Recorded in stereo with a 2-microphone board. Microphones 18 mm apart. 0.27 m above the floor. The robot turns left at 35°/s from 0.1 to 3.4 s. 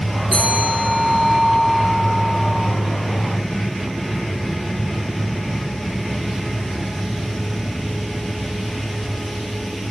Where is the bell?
135° right, 5 m; by 2.7 s 140° left, 5 m.